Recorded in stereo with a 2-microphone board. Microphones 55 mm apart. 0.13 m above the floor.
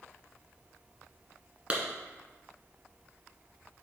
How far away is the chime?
I don't hear a chime.